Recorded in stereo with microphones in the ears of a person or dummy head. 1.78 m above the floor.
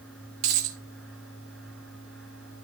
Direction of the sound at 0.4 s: 40° right (ahead or behind).